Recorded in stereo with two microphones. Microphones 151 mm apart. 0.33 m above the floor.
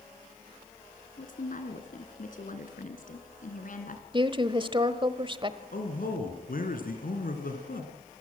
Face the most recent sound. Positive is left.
turn(degrees=75)  # may be behind; listen again after turning